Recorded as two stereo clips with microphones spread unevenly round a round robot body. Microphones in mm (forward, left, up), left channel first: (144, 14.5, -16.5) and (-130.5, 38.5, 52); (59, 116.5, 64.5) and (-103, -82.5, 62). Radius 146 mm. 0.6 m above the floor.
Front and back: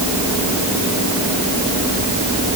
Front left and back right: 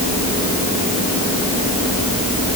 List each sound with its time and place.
Only background noise.